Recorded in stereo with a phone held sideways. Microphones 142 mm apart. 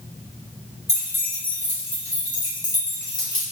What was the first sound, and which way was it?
Keys jangling, 20° left (ahead or behind).